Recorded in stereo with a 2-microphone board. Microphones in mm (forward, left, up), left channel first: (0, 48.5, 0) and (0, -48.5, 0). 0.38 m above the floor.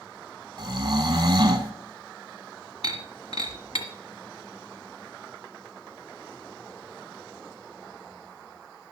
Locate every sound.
0.6 s snoring: 45° right (ahead or behind), 1.3 m
2.8 s breaking glass: 70° left (ahead or behind), 1.5 m